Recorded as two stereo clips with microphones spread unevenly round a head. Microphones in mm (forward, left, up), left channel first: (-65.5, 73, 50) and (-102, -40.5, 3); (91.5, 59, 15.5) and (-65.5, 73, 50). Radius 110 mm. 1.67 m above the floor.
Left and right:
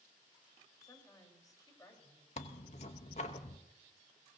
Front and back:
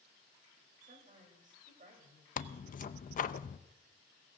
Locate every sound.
0.8 s a woman speaking: 140° left, 4 m
2.4 s tearing paper: 35° left, 0.6 m